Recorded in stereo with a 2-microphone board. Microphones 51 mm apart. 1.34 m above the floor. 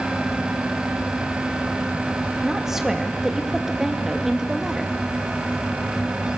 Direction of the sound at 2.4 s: 10° right (ahead or behind).